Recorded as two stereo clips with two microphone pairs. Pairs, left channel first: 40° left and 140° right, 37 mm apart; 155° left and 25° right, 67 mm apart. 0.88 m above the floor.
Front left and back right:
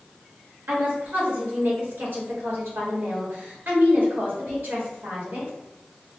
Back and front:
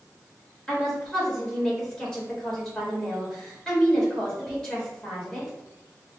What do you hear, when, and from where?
0.7 s a woman speaking: 130° right, 2 m